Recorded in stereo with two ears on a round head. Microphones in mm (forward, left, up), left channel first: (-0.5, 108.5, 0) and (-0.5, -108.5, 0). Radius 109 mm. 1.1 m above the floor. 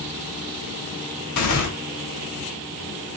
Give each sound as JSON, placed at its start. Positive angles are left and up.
{"t": 1.4, "sound": "tearing paper", "side_deg": 70, "distance_m": 1.8}